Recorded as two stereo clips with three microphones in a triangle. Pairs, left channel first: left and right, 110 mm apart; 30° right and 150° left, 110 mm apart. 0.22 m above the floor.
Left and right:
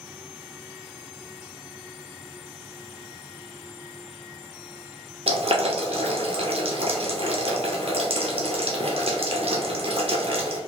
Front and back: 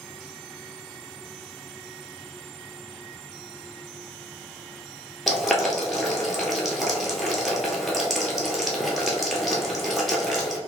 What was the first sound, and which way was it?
Boiling, 120° right.